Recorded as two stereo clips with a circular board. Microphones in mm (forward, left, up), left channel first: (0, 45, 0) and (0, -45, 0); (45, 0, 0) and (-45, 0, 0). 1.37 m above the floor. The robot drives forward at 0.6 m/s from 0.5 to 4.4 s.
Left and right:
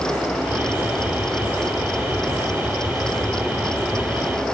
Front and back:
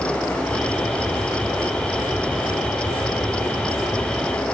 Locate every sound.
Only background noise.